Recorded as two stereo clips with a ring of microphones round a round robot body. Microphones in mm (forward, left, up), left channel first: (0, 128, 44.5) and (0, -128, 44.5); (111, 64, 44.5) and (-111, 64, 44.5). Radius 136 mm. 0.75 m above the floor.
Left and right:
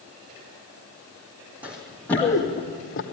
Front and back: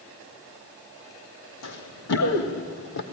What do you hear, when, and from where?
1.6 s running footsteps: 5° right, 2.5 m; by 3.0 s 35° left, 2 m